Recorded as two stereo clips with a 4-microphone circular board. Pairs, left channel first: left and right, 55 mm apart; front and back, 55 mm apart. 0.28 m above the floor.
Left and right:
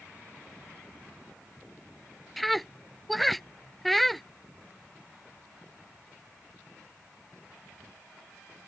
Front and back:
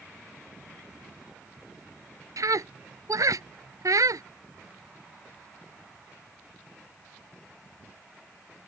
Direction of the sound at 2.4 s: 175° left.